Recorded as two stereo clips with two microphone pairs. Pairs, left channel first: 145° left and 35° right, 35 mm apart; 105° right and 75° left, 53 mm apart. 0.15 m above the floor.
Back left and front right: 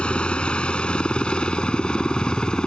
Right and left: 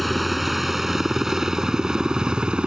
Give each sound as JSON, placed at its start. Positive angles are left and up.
{"t": 0.0, "sound": "a helicopter", "azimuth_deg": 165}